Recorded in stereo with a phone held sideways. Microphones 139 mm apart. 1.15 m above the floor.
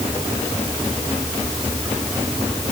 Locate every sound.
Only background noise.